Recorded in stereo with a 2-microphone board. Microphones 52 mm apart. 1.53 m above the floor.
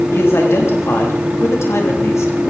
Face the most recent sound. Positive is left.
turn(degrees=75)  # may be behind; listen again after turning